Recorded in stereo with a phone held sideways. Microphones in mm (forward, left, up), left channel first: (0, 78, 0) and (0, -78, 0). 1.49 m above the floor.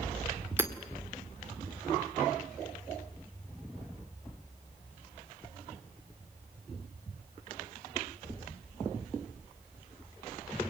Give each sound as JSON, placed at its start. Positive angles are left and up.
{"t": 0.6, "sound": "hammering", "side_deg": -15, "distance_m": 1.8}